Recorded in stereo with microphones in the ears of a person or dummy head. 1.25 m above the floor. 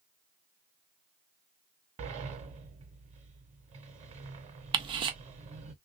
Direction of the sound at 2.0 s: 40° right (ahead or behind).